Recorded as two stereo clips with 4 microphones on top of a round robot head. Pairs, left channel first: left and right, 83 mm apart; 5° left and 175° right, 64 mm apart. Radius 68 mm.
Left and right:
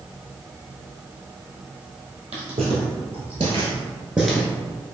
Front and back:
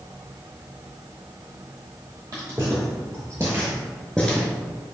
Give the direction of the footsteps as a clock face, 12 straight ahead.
4 o'clock.